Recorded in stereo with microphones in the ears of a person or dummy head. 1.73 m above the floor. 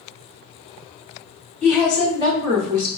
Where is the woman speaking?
5° right (ahead or behind), 1.0 m; by 2.9 s 45° right (ahead or behind), 1.1 m.